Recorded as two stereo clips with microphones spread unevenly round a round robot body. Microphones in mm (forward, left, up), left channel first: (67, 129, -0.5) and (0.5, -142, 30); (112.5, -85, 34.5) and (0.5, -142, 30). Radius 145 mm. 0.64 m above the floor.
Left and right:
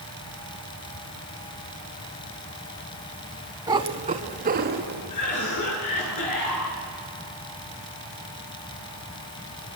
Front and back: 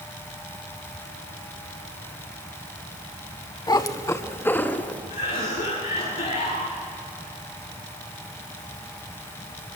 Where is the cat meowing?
30° right, 1.4 m; by 5.0 s 50° right, 2.5 m.